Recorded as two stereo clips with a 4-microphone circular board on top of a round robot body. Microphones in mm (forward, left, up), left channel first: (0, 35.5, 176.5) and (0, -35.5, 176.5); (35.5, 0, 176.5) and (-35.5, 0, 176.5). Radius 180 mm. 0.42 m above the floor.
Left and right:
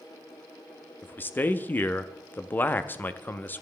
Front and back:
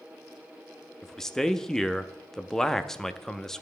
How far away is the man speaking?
About 0.7 m.